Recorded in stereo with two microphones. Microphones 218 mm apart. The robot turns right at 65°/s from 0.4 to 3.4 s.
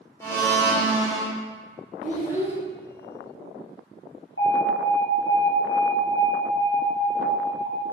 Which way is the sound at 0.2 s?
160° left.